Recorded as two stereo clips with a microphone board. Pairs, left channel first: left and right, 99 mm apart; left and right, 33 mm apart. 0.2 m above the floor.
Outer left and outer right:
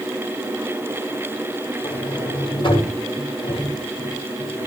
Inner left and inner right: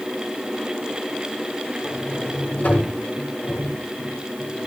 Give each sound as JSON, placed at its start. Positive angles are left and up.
{"t": 1.8, "sound": "a sliding door", "side_deg": 50, "distance_m": 7.5}